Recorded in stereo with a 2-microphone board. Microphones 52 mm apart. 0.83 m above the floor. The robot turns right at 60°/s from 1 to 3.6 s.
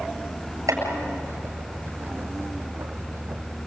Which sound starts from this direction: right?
Chopping, at 0.7 s.